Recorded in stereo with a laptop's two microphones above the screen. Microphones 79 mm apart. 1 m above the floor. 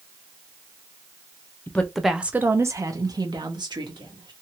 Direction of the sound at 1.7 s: 20° left (ahead or behind).